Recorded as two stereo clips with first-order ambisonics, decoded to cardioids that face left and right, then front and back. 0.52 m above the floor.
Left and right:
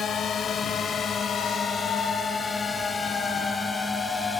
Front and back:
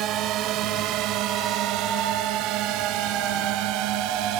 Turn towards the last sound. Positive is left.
turn(degrees=170)